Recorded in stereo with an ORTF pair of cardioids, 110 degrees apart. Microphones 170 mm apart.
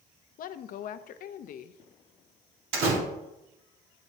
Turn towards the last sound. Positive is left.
turn(degrees=-70)